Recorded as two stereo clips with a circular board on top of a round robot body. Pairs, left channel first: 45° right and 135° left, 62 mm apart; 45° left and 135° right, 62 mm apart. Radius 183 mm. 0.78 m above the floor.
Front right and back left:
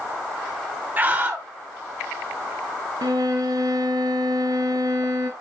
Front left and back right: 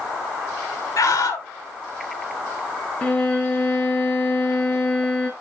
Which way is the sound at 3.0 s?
115° left.